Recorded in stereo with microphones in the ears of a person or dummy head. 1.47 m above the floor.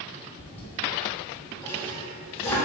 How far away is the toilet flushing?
About 2 m.